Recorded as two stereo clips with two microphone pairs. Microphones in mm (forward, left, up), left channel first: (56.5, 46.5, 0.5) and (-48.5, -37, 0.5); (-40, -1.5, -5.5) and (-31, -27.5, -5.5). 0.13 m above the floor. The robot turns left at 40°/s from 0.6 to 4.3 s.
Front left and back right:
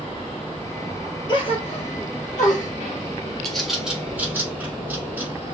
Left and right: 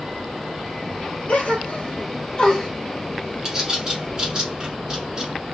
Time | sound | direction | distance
1.3 | a gasp | 90° left | 1.2 m
3.5 | a bird | 45° right | 1.1 m